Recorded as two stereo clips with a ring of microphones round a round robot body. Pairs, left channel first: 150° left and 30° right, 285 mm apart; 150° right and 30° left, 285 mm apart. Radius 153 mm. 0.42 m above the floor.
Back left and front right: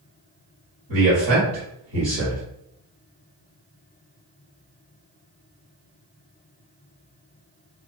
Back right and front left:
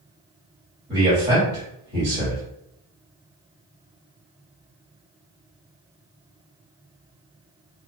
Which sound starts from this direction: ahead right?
A man speaking, at 0.9 s.